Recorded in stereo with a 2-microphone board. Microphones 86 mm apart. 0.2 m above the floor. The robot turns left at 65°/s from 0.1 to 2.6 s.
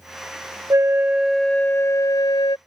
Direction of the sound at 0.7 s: 140° right.